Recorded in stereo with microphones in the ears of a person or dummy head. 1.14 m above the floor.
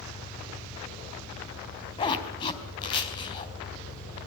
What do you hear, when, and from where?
0.0 s an engine running: 35° left (ahead or behind), 5.5 m
2.0 s a zipper: 30° left (ahead or behind), 3.5 m